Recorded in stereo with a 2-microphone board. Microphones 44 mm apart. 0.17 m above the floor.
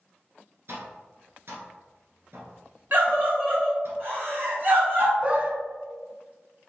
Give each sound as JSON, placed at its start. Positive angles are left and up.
{"t": 0.7, "sound": "tapping", "side_deg": -60, "distance_m": 1.2}
{"t": 2.9, "sound": "a scream", "side_deg": -40, "distance_m": 1.6}
{"t": 5.2, "sound": "a dog barking", "side_deg": -30, "distance_m": 0.5}